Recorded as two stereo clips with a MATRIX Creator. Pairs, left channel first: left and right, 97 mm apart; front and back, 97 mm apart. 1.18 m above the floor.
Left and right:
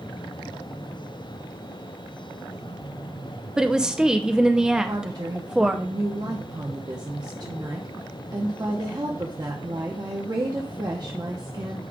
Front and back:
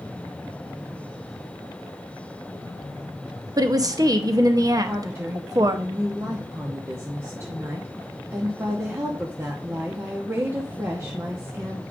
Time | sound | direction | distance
3.6 | a woman speaking | 170° right | 0.7 m
4.9 | a woman speaking | 125° right | 0.9 m